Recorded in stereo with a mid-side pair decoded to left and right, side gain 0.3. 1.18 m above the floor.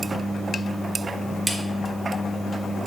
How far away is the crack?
About 1.5 m.